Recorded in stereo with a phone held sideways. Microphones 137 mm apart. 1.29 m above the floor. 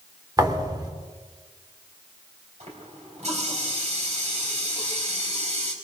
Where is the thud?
30° right (ahead or behind), 2.0 m.